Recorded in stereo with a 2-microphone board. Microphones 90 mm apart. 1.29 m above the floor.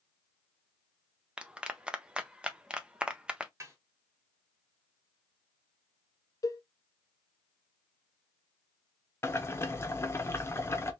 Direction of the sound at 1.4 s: 10° right (ahead or behind).